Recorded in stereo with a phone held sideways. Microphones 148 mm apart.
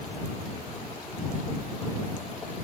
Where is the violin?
No violin in this recording.